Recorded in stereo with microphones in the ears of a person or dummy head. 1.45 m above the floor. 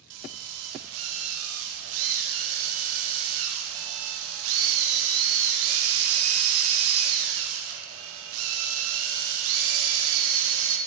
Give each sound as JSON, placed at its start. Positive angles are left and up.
{"t": 0.1, "sound": "a drill", "side_deg": -80, "distance_m": 2.0}